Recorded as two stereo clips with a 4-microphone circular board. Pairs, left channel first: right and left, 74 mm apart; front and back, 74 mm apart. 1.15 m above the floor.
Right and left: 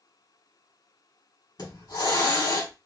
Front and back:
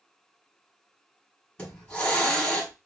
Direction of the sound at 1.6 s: 75° right.